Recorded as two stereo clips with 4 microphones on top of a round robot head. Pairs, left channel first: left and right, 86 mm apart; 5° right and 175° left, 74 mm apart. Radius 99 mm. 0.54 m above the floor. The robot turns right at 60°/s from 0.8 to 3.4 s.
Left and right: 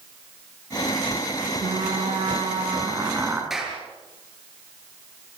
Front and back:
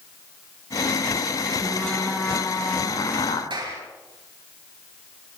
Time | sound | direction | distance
1.6 | frying | 120° right | 4 m
3.5 | a clap | 175° right | 7.5 m